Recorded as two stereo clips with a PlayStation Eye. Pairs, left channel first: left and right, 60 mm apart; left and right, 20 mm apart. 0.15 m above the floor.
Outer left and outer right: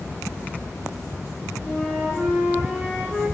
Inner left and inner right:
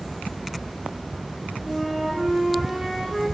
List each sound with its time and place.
1.6 s a flute: 20° left (ahead or behind), 3.5 m